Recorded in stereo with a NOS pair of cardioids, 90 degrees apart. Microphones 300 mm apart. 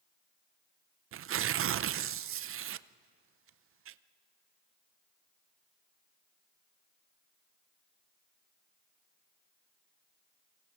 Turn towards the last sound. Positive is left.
turn(degrees=-50)